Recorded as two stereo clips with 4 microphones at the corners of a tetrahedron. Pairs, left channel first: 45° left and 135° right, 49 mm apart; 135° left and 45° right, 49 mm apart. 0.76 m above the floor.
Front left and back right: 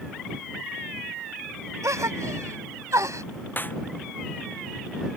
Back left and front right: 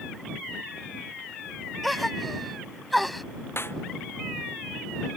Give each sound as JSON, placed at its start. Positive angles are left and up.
{"t": 1.8, "sound": "a gasp", "azimuth_deg": -135}
{"t": 3.6, "sound": "a snare drum", "azimuth_deg": 95}